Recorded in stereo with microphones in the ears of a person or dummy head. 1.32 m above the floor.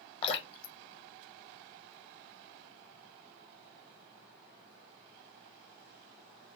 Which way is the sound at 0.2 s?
30° left (ahead or behind).